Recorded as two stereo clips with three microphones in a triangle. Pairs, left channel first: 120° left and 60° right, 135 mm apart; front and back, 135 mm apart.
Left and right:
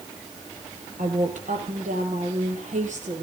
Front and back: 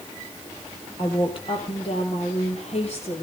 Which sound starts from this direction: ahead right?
A woman speaking, at 1.0 s.